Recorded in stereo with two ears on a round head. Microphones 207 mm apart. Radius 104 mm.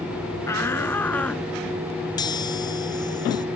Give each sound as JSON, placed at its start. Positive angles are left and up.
{"t": 0.5, "sound": "a shout", "side_deg": 10}
{"t": 2.2, "sound": "a chime", "side_deg": 20}